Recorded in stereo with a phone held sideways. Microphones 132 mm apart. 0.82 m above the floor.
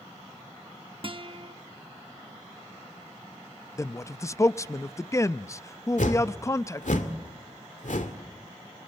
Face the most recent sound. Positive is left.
turn(degrees=80)